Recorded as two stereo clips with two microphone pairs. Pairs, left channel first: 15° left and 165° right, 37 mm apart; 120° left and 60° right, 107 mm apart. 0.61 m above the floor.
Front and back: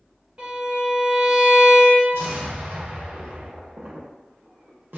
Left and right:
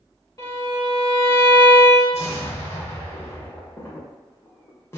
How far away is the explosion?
About 0.6 m.